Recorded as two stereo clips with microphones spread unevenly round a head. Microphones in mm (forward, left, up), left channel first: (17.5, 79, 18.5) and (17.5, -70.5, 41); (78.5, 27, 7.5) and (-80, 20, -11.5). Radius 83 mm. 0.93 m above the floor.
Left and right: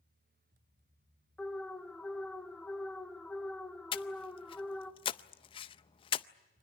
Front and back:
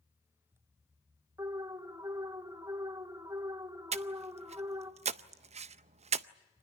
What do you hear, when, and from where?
1.4 s an alarm: 150° left, 1.2 m
3.9 s breathing: 140° left, 0.5 m